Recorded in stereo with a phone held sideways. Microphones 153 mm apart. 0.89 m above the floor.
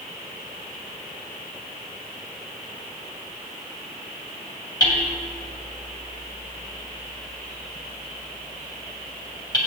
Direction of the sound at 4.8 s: 25° left (ahead or behind).